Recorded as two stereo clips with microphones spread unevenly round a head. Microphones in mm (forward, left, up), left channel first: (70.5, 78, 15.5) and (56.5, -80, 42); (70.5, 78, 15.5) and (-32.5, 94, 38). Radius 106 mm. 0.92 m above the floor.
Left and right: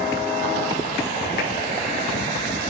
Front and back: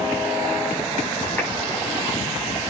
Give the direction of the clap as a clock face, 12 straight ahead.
10 o'clock.